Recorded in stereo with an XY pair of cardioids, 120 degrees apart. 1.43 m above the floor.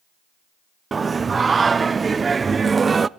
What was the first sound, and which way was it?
Singing, 25° right.